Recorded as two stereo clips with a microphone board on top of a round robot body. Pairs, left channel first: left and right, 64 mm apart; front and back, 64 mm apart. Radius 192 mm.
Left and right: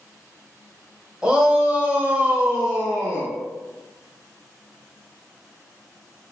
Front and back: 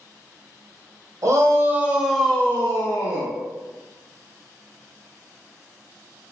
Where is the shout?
160° right, 1.1 m; by 3.3 s 15° right, 1.3 m.